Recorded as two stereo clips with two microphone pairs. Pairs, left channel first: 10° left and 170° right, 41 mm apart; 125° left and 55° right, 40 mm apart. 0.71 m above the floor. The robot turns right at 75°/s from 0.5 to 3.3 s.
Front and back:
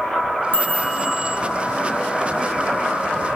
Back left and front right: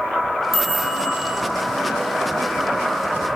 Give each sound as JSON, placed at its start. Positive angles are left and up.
{"t": 0.5, "sound": "a chime", "azimuth_deg": 40, "distance_m": 0.7}